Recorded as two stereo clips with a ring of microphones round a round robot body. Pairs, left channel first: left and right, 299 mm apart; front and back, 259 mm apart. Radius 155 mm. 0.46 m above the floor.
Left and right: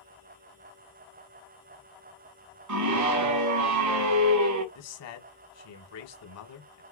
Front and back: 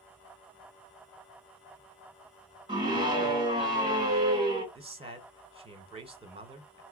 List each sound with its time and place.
2.7 s a scream: 105° right, 1.7 m
4.8 s a man speaking: 115° left, 1.8 m